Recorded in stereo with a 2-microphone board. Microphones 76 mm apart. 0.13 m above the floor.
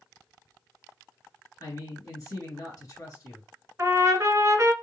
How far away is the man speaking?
About 2 m.